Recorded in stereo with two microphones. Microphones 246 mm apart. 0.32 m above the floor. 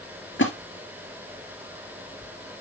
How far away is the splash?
About 3 m.